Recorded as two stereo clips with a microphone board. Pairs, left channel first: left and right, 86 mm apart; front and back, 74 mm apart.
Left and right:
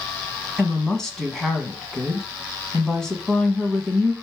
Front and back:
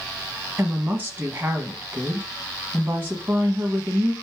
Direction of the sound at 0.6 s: 165° left.